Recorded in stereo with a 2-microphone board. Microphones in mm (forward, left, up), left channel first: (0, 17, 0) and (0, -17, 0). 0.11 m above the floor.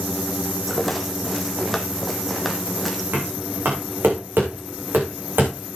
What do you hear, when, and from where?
0.7 s a rattle: centre (ahead or behind), 1.2 m
3.1 s knocking: 75° right (ahead or behind), 6 m